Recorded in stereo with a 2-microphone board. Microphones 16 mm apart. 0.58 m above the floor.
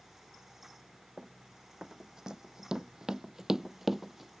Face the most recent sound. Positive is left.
turn(degrees=-10)  # may be behind; listen again after turning